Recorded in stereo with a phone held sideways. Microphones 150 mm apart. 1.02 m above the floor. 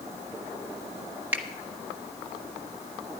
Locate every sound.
1.3 s a finger snap: 10° right (ahead or behind), 1.2 m